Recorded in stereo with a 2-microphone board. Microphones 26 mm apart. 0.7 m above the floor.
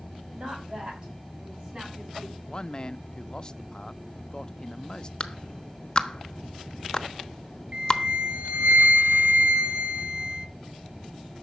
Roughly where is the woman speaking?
Right.